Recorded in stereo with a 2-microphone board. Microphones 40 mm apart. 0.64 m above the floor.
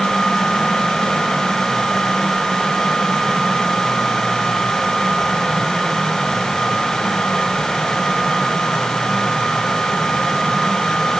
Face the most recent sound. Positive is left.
No sound to turn to.